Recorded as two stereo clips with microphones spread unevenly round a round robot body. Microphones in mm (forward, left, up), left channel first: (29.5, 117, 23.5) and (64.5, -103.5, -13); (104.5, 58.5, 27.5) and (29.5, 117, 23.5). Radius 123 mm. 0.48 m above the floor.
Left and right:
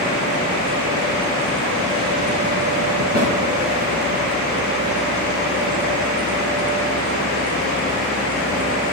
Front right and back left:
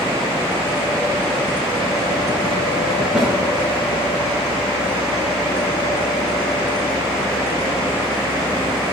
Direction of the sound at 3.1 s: 135° right.